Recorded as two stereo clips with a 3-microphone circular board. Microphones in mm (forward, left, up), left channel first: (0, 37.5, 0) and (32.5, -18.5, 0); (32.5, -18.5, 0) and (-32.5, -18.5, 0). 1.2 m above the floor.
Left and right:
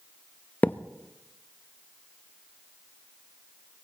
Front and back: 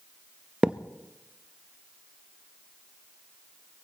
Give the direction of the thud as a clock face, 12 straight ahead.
8 o'clock.